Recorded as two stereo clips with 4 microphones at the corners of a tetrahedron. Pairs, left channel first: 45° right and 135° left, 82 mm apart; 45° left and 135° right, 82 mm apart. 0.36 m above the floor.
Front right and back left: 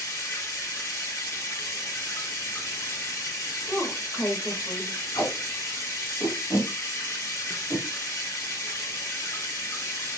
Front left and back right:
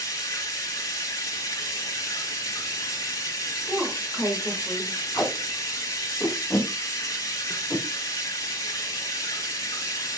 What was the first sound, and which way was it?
Running water, 5° left.